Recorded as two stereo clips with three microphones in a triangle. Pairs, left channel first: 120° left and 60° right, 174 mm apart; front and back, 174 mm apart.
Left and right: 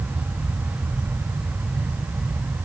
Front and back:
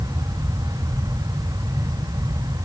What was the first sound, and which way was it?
Only background noise.